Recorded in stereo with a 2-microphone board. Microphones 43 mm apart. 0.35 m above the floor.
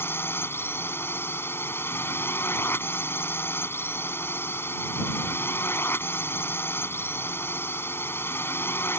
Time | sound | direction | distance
0.0 | a drone | 65° left (ahead or behind) | ?